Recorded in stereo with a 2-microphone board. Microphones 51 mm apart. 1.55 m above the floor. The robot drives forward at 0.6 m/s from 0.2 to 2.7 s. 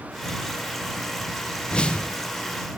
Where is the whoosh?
20° left (ahead or behind), 0.5 m.